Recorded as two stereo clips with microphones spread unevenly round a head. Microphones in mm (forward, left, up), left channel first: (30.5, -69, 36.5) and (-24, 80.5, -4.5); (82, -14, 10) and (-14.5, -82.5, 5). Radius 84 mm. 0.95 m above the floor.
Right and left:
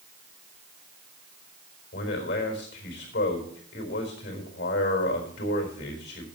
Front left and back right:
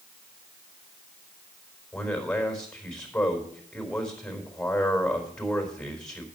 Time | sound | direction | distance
1.9 | a man speaking | 45° right | 4 m